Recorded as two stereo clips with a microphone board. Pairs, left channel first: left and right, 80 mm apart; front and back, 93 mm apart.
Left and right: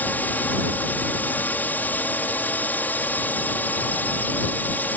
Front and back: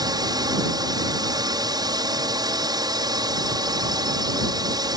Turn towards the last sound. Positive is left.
turn(degrees=155)